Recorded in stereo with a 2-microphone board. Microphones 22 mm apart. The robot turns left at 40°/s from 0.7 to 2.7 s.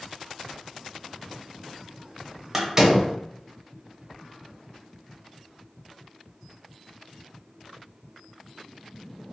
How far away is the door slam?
About 0.7 m.